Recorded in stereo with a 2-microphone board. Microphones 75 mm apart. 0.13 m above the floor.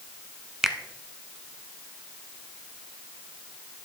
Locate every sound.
0.6 s a finger snap: 5° right (ahead or behind), 0.8 m